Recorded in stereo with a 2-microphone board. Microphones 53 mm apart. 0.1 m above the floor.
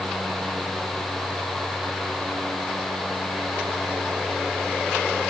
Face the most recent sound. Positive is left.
No sound to turn to.